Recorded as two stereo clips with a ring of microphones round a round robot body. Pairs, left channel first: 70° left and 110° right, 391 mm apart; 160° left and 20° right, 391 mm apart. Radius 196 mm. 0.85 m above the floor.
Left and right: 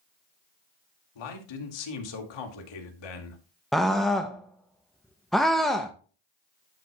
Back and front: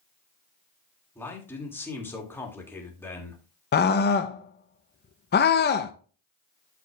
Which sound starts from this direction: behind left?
A scream, at 3.7 s.